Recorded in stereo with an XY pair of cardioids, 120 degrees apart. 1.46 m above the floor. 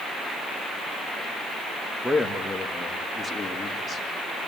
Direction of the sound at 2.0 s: 5° left.